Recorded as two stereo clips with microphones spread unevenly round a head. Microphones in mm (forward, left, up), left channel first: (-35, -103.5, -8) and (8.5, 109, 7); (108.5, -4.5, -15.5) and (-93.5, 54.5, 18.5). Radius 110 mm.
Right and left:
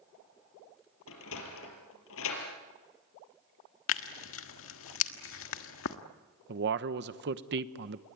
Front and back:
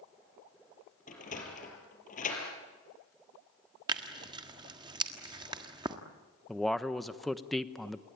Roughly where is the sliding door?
Right.